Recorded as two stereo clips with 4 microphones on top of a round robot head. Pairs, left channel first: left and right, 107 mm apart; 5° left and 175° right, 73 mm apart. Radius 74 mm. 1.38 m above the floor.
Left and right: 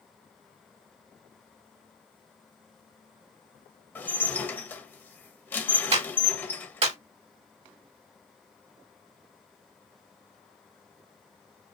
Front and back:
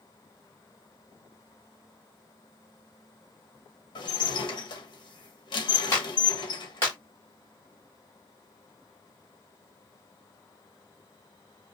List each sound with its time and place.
4.0 s dishes clattering: 15° left, 1.2 m
5.9 s a clap: 65° right, 2.5 m